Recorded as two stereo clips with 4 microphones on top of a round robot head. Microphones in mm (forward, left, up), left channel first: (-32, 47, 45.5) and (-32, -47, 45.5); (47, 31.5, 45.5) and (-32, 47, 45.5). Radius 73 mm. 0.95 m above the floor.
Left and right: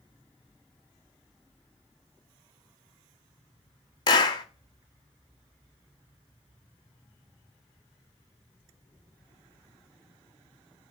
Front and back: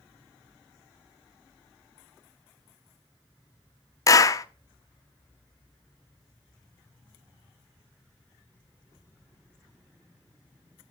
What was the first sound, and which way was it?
A clap, 35° left.